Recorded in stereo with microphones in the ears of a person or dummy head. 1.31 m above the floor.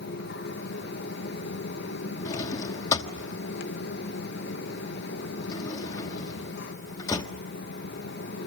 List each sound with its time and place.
0.0 s a fan: 65° left (ahead or behind), 1.9 m
2.2 s a drawer: 20° left (ahead or behind), 1.2 m